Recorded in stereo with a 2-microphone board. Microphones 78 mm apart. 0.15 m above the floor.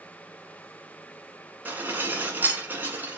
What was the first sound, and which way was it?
Dishes clattering, 25° right (ahead or behind).